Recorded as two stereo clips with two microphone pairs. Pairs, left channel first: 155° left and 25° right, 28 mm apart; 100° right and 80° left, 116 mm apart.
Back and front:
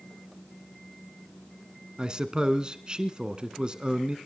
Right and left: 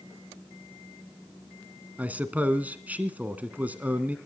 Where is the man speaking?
10° left, 1.2 m.